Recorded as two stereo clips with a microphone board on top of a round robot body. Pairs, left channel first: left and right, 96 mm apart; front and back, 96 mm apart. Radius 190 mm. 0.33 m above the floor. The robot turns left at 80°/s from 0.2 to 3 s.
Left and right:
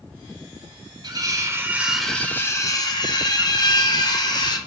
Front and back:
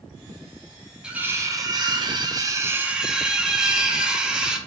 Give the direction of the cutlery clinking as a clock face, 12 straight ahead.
3 o'clock.